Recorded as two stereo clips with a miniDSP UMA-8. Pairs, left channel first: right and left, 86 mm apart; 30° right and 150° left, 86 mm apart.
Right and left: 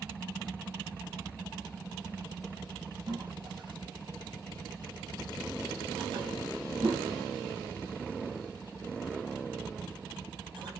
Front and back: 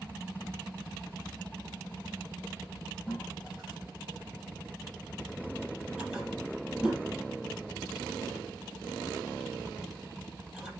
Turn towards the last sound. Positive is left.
turn(degrees=65)